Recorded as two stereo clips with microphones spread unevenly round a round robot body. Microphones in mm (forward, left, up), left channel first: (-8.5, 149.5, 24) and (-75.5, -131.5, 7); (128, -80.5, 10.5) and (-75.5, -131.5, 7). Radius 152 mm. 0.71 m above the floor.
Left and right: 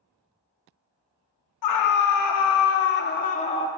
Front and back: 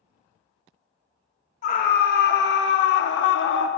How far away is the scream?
About 1.1 m.